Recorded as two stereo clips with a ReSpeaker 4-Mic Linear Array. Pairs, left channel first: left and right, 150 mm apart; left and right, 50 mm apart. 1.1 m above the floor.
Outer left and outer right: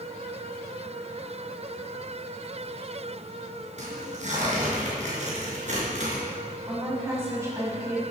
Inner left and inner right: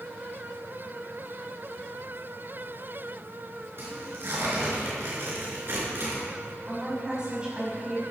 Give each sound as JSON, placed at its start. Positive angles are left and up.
{"t": 3.8, "sound": "tearing paper", "side_deg": -55, "distance_m": 4.5}
{"t": 6.7, "sound": "a woman speaking", "side_deg": -20, "distance_m": 6.0}